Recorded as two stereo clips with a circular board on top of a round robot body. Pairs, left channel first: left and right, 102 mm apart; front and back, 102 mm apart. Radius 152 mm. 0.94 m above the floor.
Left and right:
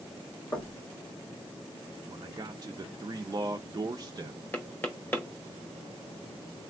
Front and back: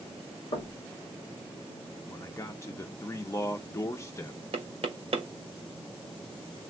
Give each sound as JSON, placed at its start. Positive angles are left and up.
{"t": 0.5, "sound": "knocking", "azimuth_deg": 30, "distance_m": 1.1}
{"t": 2.1, "sound": "a man speaking", "azimuth_deg": -55, "distance_m": 0.6}
{"t": 4.5, "sound": "knocking", "azimuth_deg": 160, "distance_m": 0.8}